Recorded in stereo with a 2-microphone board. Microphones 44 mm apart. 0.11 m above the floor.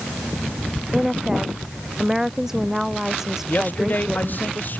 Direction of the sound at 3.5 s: 50° left (ahead or behind).